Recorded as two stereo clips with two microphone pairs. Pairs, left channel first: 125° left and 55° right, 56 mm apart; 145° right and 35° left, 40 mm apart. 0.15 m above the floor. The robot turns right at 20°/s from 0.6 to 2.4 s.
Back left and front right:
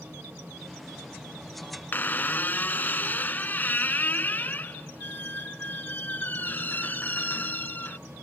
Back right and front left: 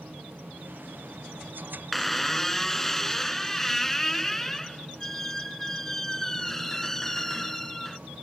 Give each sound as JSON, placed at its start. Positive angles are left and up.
{"t": 1.9, "sound": "a squeak", "azimuth_deg": 130}